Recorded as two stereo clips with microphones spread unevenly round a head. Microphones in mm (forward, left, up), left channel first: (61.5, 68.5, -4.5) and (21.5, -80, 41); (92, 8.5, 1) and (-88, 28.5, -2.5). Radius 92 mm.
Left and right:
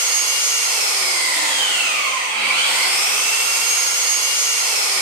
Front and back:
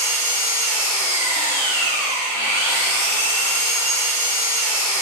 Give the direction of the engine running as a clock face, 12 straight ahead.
3 o'clock.